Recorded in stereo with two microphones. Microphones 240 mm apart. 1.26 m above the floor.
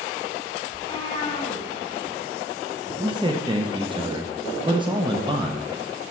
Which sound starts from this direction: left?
A cat meowing, at 0.7 s.